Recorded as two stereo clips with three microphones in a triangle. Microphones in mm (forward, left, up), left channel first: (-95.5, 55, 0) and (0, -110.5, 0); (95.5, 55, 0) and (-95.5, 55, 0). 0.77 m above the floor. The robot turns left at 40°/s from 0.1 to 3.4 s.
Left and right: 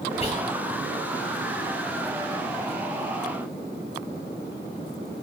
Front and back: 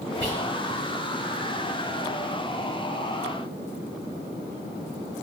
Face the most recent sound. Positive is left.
turn(degrees=45)